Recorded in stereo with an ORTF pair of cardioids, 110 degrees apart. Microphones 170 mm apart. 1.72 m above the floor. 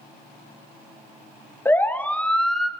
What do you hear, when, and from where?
1.6 s a siren: 15° left, 3 m; by 2.7 s straight ahead, 2.5 m